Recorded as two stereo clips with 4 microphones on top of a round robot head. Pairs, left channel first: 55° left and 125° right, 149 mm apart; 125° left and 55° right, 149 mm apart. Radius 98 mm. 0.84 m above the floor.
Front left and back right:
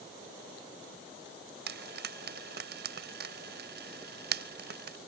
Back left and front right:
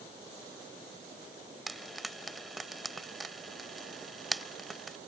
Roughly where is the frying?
Behind right.